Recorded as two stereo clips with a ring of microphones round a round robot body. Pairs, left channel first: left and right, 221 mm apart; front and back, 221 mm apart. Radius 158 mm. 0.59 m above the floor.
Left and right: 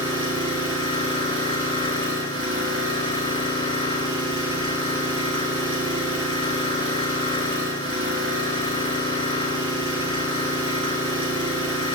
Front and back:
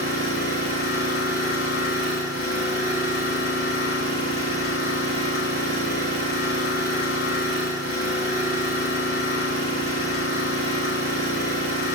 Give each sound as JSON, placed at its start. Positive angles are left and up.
{"t": 0.0, "sound": "an engine running", "azimuth_deg": -70, "distance_m": 4.5}